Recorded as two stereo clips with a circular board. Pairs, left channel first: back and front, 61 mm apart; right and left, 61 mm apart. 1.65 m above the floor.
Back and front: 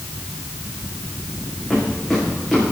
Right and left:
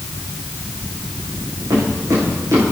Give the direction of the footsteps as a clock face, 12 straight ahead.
9 o'clock.